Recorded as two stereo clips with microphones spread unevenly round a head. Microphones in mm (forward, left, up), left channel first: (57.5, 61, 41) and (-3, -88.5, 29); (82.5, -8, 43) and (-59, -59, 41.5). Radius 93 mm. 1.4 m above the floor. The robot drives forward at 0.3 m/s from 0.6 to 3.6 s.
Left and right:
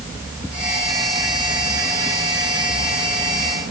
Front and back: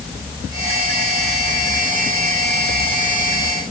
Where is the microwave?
No microwave in this recording.